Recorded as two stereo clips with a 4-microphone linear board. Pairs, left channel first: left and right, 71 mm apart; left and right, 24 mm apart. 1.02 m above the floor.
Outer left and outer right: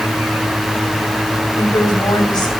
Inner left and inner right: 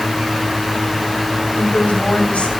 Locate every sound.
1.6 s a woman speaking: 75° left (ahead or behind), 7 m